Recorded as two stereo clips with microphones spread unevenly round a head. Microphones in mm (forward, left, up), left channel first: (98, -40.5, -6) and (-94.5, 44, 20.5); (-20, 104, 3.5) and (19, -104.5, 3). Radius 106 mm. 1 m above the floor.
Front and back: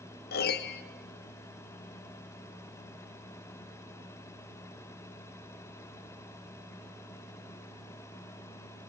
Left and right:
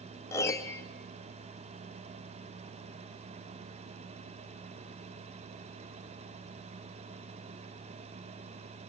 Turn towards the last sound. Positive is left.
turn(degrees=25)